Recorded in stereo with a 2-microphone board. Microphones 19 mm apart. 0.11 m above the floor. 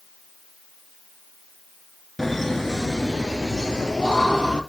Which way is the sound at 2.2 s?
10° left (ahead or behind).